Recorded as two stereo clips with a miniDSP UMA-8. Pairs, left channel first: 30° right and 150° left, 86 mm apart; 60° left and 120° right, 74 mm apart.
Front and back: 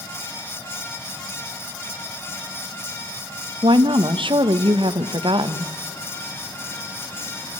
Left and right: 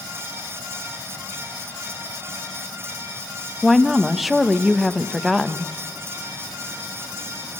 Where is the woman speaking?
150° left, 1.0 m.